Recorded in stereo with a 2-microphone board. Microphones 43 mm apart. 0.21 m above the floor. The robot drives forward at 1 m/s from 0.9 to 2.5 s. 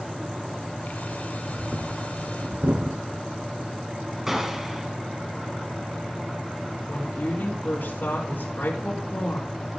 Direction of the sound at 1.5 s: 55° right (ahead or behind).